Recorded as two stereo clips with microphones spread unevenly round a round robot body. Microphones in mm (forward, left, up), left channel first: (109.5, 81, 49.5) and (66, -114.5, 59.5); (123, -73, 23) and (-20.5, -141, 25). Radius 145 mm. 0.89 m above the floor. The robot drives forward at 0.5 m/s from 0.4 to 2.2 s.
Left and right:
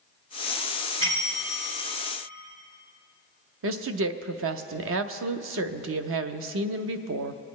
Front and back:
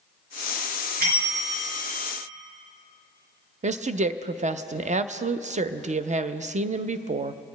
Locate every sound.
1.0 s a bell: 130° right, 4 m; by 1.8 s 135° right, 4.5 m
3.6 s a woman speaking: 110° right, 0.6 m